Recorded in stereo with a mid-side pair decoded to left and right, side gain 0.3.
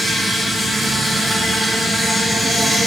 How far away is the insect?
About 4 m.